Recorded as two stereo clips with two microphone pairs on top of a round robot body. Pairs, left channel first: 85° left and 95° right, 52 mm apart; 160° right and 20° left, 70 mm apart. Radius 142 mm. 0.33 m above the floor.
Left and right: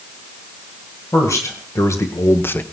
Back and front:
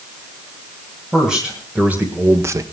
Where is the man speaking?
105° left, 2.5 m; by 2.6 s 50° left, 1.1 m.